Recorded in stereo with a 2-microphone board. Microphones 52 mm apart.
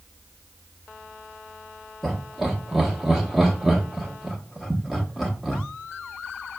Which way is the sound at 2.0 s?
Centre (ahead or behind).